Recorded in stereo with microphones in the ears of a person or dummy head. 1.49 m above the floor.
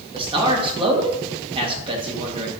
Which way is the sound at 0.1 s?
30° right (ahead or behind).